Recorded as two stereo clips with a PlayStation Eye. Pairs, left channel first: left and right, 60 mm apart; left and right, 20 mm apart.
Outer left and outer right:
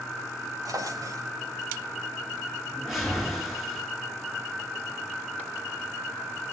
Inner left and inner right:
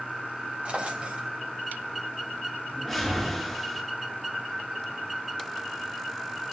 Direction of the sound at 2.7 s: Centre (ahead or behind).